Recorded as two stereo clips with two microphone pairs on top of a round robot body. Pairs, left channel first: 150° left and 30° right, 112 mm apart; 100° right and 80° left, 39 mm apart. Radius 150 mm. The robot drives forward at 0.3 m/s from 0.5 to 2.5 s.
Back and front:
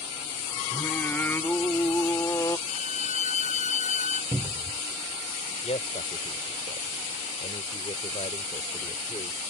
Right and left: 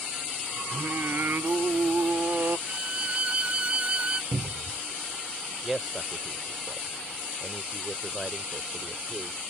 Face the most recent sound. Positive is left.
turn(degrees=170)